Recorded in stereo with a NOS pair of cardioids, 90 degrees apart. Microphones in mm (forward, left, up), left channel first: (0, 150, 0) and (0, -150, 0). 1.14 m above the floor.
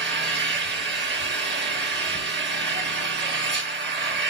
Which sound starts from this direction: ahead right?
An engine running, at 0.0 s.